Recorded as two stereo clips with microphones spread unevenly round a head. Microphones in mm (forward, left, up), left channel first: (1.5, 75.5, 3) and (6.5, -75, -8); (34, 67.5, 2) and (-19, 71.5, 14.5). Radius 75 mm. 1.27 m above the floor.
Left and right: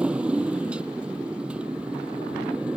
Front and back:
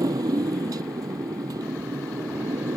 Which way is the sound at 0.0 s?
170° right.